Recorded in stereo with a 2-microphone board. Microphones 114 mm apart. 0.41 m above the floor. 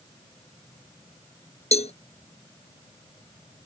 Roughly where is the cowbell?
Left.